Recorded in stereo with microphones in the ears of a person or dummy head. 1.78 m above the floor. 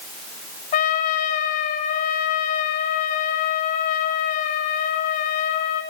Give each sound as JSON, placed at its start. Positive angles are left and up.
{"t": 0.7, "sound": "a trumpet", "side_deg": 30, "distance_m": 1.0}